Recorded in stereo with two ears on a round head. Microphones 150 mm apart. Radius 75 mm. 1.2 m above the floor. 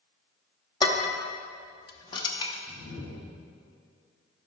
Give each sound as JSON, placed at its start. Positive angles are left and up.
{"t": 0.8, "sound": "dishes clattering", "side_deg": 25, "distance_m": 1.1}
{"t": 2.7, "sound": "a whoosh", "side_deg": 60, "distance_m": 2.0}